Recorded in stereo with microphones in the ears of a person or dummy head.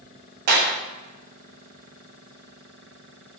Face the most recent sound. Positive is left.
turn(degrees=-50)  # may be behind; listen again after turning